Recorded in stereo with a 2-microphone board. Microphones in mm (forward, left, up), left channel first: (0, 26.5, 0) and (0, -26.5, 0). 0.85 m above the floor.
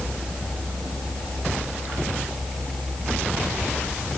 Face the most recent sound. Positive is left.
No sound to turn to.